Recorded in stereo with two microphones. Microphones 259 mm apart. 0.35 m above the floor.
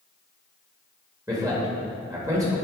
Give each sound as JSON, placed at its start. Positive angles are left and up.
{"t": 1.3, "sound": "a man speaking", "side_deg": -10, "distance_m": 1.5}